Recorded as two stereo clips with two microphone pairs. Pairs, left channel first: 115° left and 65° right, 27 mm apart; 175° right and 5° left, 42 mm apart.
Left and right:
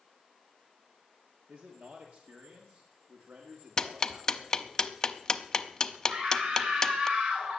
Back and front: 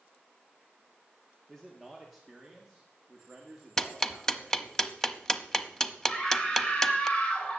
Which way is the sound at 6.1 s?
105° right.